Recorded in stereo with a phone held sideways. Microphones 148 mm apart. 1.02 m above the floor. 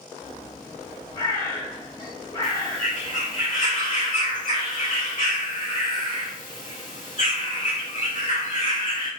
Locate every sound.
0.2 s a bird: 30° left (ahead or behind), 1.4 m
2.4 s a bird: 55° left (ahead or behind), 1.8 m